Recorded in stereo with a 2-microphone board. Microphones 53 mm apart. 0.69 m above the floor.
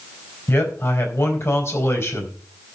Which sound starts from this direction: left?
A man speaking, at 0.5 s.